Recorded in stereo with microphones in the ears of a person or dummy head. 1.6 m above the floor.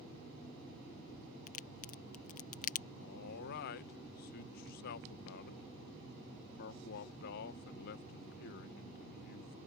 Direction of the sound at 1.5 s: 45° left (ahead or behind).